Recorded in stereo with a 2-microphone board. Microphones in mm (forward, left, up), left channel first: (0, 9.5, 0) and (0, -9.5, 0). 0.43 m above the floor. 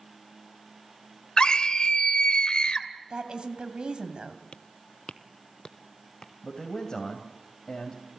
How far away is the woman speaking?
About 3 m.